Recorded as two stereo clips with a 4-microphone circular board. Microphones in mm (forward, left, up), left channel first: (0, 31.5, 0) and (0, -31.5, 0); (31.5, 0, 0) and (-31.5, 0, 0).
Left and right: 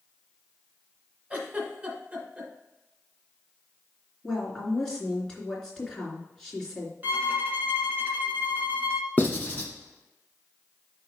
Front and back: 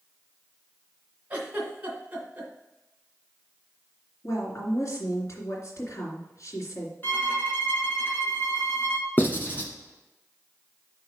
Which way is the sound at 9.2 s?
40° left.